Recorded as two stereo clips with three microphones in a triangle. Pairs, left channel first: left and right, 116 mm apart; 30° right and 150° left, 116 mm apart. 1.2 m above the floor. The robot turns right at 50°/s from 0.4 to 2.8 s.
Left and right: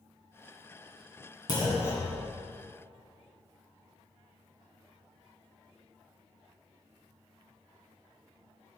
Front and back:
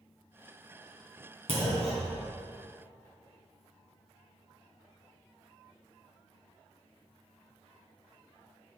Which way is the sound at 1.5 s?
135° left.